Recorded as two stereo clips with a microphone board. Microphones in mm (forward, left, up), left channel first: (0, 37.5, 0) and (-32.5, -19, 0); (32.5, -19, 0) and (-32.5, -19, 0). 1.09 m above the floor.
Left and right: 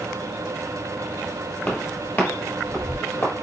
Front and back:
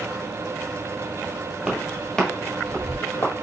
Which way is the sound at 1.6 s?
100° left.